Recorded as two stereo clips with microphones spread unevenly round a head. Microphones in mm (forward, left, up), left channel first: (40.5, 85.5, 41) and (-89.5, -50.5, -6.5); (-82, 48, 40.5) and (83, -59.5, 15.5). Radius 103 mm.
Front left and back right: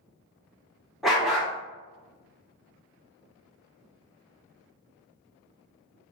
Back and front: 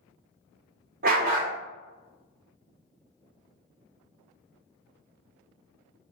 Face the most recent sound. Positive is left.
turn(degrees=-20)